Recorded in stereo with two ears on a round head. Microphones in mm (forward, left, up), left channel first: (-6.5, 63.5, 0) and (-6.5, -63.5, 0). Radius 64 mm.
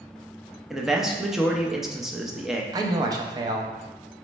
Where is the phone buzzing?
I don't hear a phone buzzing.